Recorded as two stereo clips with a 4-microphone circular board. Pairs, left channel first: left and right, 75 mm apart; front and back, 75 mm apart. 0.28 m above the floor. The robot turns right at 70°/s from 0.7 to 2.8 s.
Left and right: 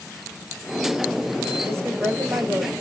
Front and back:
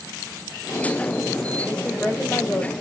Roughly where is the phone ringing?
I don't hear a phone ringing.